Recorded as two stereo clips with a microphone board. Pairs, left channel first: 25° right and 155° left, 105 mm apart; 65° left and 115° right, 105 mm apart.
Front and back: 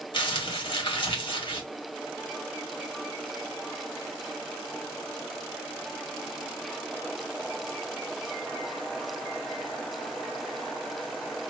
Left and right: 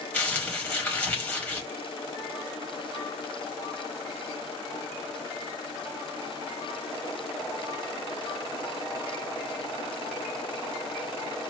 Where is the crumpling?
Straight ahead, 1.5 m.